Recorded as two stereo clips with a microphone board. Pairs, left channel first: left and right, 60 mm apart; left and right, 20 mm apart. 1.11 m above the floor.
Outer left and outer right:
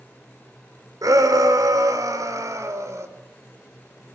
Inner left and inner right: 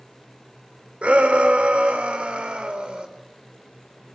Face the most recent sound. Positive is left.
turn(degrees=-55)  # may be behind; listen again after turning